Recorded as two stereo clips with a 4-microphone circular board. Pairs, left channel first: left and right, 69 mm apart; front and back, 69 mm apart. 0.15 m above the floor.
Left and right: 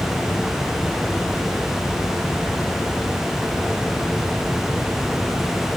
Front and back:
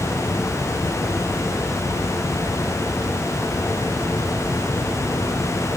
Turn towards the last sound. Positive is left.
No sound to turn to.